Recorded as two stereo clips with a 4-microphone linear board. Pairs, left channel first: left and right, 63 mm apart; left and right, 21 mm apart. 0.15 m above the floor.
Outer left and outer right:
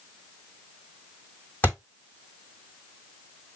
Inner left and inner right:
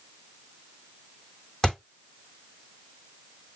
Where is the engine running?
I don't hear an engine running.